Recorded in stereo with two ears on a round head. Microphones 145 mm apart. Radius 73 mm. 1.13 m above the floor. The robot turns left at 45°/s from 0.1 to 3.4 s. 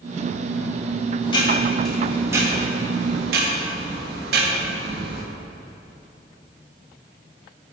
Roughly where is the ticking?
Ahead left.